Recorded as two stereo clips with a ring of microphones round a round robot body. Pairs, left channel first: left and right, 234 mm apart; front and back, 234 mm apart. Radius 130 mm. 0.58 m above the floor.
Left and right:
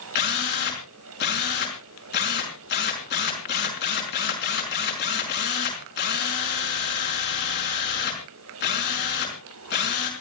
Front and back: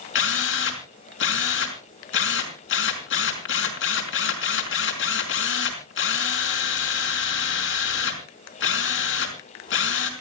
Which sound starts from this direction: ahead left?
A drill, at 0.1 s.